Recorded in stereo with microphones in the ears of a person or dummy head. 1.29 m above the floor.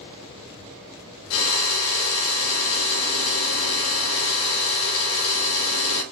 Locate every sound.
1.3 s a drill: 80° left, 1.7 m